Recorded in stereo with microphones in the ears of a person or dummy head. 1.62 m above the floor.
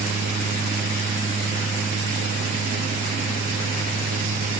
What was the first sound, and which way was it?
Only background noise.